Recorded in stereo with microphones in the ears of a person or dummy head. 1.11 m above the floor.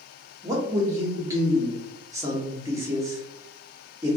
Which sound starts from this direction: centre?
A man speaking, at 0.4 s.